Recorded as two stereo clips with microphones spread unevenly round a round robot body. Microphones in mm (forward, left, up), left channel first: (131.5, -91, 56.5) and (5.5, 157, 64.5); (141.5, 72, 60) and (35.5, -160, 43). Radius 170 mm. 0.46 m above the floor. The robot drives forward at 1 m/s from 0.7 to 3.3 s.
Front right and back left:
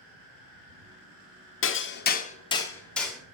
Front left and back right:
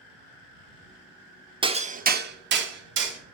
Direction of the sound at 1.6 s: 55° right.